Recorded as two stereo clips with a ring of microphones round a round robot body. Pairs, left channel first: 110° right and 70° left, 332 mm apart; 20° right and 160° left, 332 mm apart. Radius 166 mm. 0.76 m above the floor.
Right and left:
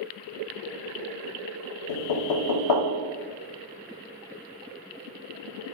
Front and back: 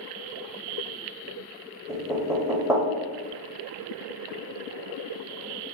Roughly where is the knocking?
Behind right.